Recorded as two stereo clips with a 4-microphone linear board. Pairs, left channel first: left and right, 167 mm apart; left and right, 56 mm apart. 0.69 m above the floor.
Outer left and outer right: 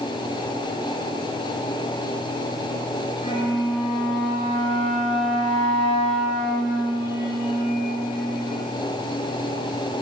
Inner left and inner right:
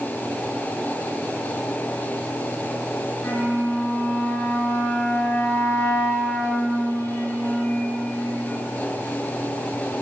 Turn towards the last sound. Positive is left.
turn(degrees=40)  # may be behind; listen again after turning